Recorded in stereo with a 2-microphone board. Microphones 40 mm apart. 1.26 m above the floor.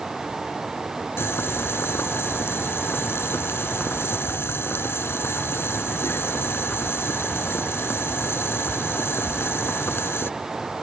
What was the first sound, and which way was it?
Boiling, 90° left.